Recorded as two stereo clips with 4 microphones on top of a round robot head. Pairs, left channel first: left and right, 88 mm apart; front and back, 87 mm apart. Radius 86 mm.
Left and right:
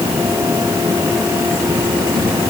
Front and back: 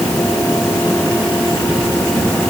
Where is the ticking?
I don't hear ticking.